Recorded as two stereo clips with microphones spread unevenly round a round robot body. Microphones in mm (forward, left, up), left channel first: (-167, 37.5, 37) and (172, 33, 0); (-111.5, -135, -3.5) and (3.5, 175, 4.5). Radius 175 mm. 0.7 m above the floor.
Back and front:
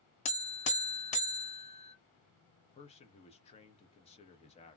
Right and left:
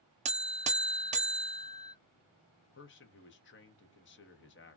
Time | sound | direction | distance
0.2 | a buzzer | 125° left | 0.5 m
2.6 | a man speaking | 110° right | 0.7 m